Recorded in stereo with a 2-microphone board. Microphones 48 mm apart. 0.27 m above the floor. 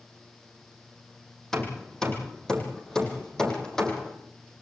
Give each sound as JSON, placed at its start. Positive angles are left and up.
{"t": 1.5, "sound": "hammering", "side_deg": 10, "distance_m": 4.5}